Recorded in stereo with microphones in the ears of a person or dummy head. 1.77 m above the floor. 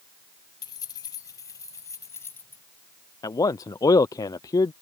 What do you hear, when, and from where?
0.6 s keys jangling: 20° left (ahead or behind); by 2.6 s 10° left (ahead or behind)
3.2 s a man speaking: 15° left (ahead or behind)